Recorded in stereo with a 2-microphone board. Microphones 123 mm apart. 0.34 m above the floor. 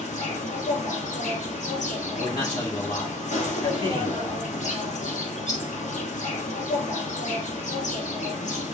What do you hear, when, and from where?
0.0 s an insect: 90° left, 1.1 m
2.1 s a man speaking: 40° left (ahead or behind), 1.6 m